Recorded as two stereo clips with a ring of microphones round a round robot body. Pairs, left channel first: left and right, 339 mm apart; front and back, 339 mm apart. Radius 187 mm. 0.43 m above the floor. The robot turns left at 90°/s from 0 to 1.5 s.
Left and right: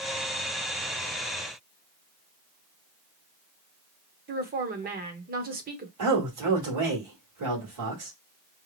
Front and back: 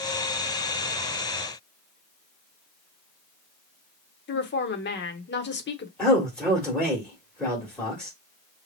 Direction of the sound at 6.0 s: 85° right.